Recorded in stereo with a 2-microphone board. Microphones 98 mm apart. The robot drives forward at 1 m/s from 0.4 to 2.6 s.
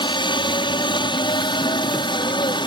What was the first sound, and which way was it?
A helicopter, 60° left (ahead or behind).